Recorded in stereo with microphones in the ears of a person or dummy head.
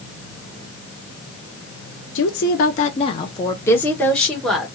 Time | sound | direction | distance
2.1 | a woman speaking | 60° left (ahead or behind) | 0.6 m